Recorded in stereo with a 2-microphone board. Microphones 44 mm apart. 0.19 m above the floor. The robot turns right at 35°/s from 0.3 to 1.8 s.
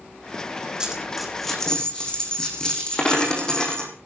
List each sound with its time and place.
0.8 s a dropped coin: 15° right, 4.5 m; by 3.9 s 20° left, 4.5 m